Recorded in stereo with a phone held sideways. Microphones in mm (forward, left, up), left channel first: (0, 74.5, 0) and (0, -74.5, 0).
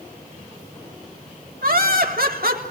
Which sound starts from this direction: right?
Laughter, at 1.6 s.